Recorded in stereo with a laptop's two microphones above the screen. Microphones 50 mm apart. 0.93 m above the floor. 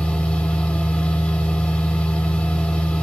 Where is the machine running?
20° left (ahead or behind), 1.5 m.